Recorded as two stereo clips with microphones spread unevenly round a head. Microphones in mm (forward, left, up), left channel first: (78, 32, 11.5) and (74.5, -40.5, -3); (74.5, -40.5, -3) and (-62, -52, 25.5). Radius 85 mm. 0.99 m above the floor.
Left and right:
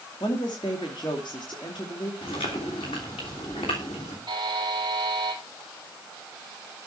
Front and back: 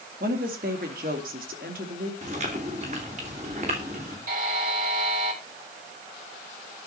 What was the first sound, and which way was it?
A woman speaking, 145° left.